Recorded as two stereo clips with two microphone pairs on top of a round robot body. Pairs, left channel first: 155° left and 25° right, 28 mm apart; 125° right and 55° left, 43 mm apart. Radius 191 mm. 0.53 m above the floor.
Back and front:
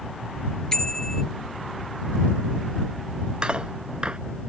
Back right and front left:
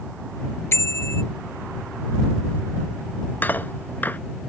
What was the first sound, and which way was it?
A bicycle bell, 140° right.